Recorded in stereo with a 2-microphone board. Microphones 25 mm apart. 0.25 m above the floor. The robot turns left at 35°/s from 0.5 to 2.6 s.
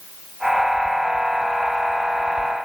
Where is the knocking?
I don't hear knocking.